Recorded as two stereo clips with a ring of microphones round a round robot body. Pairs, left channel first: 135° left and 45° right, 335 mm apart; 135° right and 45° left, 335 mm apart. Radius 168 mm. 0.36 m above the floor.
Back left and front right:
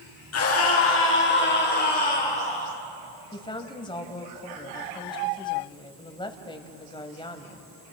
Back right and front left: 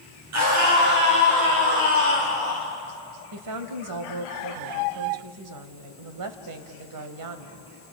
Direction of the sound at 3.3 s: 60° left.